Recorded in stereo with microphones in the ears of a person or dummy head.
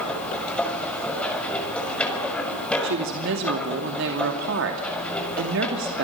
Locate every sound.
0.0 s a machine running: 5° left (ahead or behind), 6 m
2.8 s a woman speaking: 65° right (ahead or behind), 2.5 m